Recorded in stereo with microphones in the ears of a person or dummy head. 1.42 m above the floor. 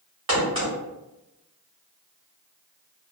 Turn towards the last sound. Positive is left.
turn(degrees=-20)  # may be behind; listen again after turning